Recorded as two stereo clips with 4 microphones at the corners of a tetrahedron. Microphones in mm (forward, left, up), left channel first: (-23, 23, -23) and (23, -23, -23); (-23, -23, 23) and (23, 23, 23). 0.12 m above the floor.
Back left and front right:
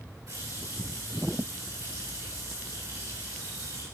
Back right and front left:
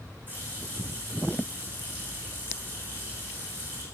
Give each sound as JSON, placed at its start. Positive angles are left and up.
{"t": 0.3, "sound": "a running tap", "azimuth_deg": -15, "distance_m": 6.5}